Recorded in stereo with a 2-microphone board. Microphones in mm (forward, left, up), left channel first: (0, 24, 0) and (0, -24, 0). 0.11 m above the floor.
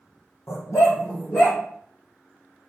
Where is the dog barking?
75° left (ahead or behind), 1.5 m; by 1.6 s 60° left (ahead or behind), 1.8 m.